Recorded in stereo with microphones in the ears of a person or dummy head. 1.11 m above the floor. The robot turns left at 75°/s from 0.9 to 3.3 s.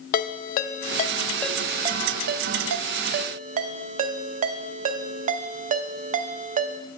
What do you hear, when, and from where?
0.1 s a ringtone: 45° left (ahead or behind), 0.5 m; by 6.8 s 45° right (ahead or behind), 0.5 m